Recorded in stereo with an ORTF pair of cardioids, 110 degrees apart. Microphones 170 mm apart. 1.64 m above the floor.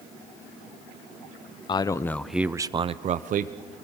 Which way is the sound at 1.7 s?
30° left.